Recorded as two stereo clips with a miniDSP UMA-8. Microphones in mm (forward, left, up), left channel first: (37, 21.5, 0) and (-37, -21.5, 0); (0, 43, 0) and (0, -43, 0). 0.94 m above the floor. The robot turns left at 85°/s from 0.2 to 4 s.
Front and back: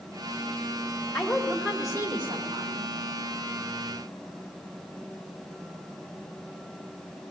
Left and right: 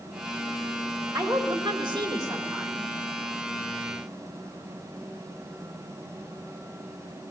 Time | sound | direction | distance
1.1 | a woman speaking | 40° right | 3 m